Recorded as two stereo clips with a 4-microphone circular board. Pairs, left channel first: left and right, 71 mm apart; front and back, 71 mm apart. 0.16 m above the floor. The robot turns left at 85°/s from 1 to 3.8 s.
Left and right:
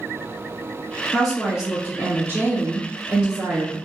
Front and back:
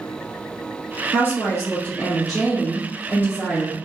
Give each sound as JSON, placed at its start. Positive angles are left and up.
{"t": 1.1, "sound": "a woman speaking", "azimuth_deg": 15, "distance_m": 1.7}